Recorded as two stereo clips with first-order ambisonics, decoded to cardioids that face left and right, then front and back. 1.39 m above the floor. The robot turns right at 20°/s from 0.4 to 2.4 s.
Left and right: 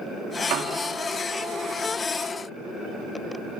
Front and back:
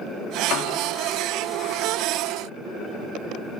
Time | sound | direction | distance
0.5 | a piano | 45° right | 2.5 m